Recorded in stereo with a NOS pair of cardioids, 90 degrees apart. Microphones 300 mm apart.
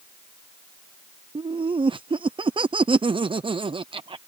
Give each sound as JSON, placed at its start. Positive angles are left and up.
{"t": 1.4, "sound": "laughter", "azimuth_deg": -15}